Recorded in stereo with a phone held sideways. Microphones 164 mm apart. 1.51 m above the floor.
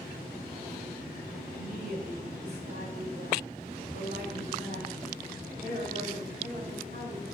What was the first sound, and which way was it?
A woman speaking, 70° right (ahead or behind).